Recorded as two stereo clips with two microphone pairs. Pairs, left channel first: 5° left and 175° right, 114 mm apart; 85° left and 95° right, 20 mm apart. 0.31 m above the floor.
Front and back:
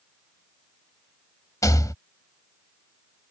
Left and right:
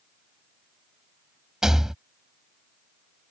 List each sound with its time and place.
1.6 s a rattle: 45° right